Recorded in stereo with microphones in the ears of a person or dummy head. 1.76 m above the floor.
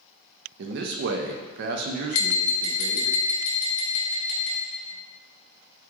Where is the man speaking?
55° right (ahead or behind), 0.5 m.